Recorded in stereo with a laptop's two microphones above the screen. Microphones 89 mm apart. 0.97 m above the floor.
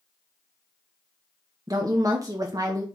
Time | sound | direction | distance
1.7 | a woman speaking | 40° right (ahead or behind) | 0.6 m